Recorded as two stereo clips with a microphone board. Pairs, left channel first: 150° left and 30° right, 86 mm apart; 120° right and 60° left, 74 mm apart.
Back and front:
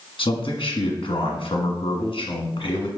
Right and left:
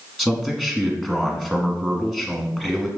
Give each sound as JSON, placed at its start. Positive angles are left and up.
{"t": 0.2, "sound": "a man speaking", "azimuth_deg": 145, "distance_m": 1.3}